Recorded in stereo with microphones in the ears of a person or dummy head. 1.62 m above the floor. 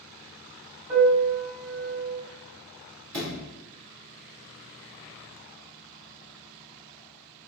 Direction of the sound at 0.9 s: 30° right (ahead or behind).